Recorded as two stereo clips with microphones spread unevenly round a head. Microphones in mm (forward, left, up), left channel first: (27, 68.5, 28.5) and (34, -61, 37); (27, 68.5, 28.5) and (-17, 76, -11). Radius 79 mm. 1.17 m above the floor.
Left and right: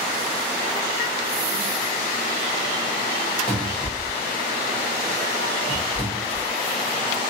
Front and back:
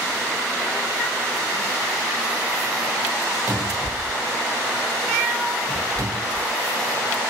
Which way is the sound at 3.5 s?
145° left.